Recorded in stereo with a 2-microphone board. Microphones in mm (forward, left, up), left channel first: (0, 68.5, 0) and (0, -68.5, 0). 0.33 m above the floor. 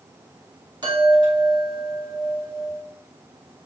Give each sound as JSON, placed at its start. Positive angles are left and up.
{"t": 0.8, "sound": "a chime", "side_deg": -30, "distance_m": 1.6}